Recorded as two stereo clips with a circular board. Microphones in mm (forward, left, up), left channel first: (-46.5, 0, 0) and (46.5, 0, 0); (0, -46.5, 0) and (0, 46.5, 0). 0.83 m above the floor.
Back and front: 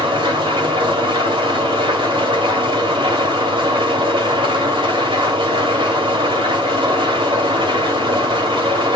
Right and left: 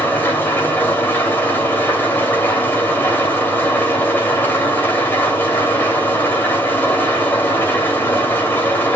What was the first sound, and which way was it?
An engine running, 20° right.